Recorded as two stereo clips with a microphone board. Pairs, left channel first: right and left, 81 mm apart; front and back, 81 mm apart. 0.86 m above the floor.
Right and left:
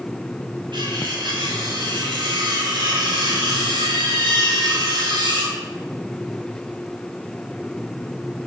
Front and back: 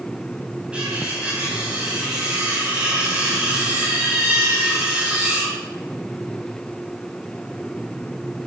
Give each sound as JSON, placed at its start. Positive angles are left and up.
{"t": 0.7, "sound": "cutlery clinking", "azimuth_deg": 105, "distance_m": 4.0}